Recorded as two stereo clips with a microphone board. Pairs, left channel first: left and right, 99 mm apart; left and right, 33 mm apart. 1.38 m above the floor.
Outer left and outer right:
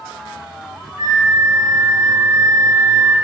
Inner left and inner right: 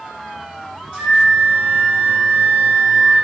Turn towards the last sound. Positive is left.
turn(degrees=-35)  # may be behind; listen again after turning